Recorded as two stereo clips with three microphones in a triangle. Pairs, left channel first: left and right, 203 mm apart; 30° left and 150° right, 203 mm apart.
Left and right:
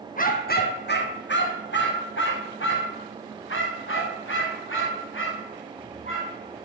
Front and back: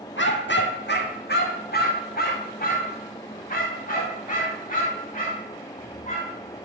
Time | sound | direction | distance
0.2 | a dog barking | 45° left | 1.4 m